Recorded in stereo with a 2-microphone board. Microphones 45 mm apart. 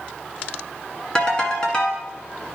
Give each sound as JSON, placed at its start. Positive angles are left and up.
{"t": 1.1, "sound": "a ringtone", "side_deg": 20, "distance_m": 1.3}